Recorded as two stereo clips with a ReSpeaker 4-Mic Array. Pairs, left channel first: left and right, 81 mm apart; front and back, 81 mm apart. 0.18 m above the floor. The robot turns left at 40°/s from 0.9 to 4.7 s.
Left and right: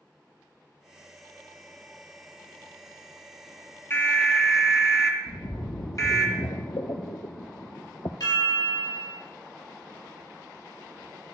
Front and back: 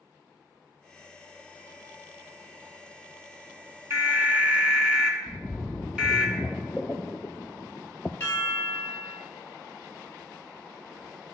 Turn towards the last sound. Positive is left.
turn(degrees=70)